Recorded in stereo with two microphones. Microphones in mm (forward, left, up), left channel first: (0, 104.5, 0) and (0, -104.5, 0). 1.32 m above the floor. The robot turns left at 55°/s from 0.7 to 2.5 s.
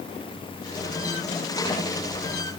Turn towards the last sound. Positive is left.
No sound to turn to.